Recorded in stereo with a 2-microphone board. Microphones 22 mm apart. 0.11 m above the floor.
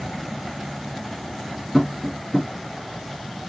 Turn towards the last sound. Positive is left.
turn(degrees=5)  # may be behind; listen again after turning